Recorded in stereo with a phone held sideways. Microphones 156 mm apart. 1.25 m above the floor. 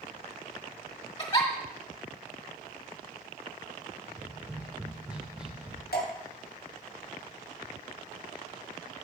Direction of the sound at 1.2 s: 35° left (ahead or behind).